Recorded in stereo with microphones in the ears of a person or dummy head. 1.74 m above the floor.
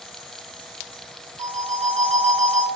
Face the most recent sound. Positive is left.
turn(degrees=-35)  # may be behind; listen again after turning